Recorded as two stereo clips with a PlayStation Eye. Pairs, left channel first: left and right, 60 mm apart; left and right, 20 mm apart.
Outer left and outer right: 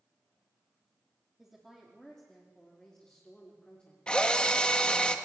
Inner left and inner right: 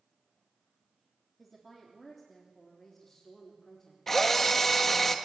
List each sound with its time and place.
1.4 s a woman speaking: 5° right (ahead or behind), 3 m; by 4.0 s 20° left (ahead or behind), 4 m
4.1 s a drill: 15° left (ahead or behind), 1.5 m